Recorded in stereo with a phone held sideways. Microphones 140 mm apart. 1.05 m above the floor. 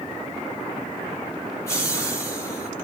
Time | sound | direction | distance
1.7 | laughter | 20° left (ahead or behind) | 2.5 m